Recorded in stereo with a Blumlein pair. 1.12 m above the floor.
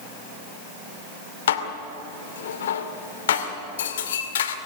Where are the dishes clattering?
60° left, 2 m.